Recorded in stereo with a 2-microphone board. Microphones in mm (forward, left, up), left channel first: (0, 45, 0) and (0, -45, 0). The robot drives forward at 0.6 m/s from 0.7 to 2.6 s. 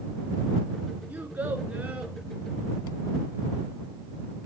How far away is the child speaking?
About 1.4 m.